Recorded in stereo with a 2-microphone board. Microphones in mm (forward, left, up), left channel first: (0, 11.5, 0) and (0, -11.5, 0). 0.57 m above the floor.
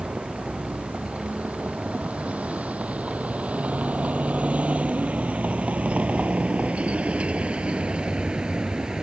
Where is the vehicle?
80° right; by 9.0 s 30° right (ahead or behind).